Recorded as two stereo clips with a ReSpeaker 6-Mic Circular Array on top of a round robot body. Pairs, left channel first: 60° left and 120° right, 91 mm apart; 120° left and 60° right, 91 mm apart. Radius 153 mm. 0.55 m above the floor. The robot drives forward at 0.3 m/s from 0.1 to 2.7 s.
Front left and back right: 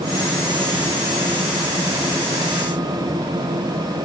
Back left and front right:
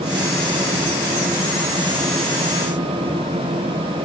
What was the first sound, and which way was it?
Only background noise.